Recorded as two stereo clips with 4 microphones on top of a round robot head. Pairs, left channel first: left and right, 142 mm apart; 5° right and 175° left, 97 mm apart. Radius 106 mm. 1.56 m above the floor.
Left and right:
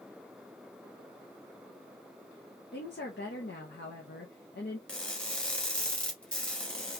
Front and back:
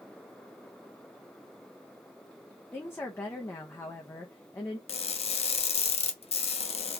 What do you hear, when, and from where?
2.7 s a woman speaking: 60° left, 0.6 m
4.9 s crushing: 5° left, 0.7 m